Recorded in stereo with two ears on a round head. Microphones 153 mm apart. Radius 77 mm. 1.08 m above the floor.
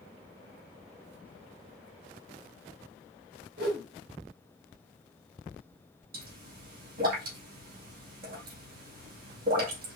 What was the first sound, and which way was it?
A whoosh, 65° right (ahead or behind).